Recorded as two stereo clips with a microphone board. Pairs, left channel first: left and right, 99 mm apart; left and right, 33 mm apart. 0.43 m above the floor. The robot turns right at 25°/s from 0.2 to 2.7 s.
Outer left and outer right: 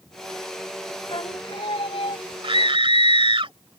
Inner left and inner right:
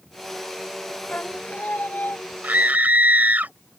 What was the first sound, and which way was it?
Singing, 60° left.